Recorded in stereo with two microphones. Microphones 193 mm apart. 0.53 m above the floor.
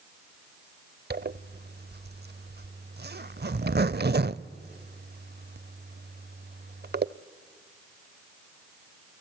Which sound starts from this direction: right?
A zipper, at 1.1 s.